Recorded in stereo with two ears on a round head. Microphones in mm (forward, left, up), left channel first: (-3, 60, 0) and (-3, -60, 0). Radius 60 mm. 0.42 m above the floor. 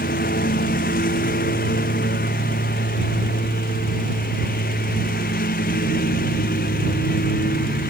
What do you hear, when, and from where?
0.0 s a lawn mower: 70° left (ahead or behind)